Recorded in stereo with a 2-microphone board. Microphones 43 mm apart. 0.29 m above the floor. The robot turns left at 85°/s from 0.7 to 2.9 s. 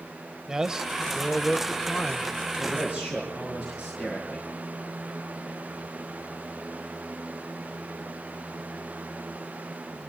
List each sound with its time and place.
0.5 s a man speaking: 15° right (ahead or behind), 0.9 m; by 2.3 s 25° left (ahead or behind), 0.9 m
2.6 s a man speaking: 50° right (ahead or behind), 5.5 m; by 4.5 s 25° right (ahead or behind), 5.5 m